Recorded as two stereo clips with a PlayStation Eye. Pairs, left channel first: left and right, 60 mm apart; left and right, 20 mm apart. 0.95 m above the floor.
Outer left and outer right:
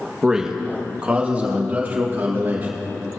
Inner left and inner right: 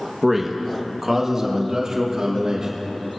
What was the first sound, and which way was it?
A man speaking, 10° right (ahead or behind).